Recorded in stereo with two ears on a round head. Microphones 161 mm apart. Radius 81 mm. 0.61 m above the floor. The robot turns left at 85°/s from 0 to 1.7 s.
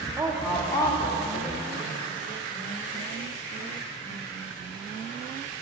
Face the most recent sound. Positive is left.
turn(degrees=70)